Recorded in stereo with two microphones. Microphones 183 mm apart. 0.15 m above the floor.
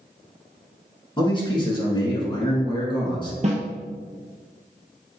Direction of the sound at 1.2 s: 25° left (ahead or behind).